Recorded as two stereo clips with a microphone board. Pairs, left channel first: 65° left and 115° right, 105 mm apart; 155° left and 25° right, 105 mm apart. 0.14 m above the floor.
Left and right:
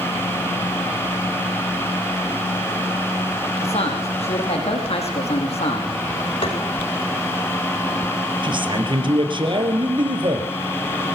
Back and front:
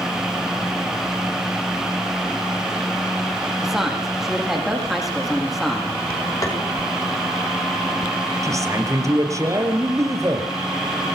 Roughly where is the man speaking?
Right.